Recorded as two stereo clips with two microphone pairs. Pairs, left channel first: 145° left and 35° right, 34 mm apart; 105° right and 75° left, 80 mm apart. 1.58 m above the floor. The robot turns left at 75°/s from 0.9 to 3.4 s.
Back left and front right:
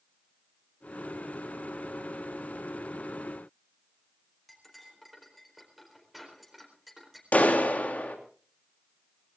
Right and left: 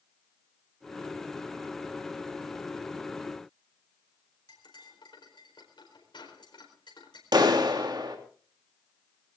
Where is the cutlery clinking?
120° right, 4.5 m.